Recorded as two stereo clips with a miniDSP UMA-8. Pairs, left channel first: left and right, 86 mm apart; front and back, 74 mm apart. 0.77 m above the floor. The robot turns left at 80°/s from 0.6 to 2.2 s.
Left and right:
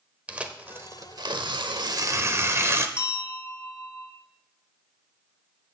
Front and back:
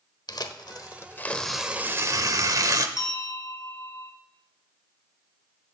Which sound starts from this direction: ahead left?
A bell, at 3.0 s.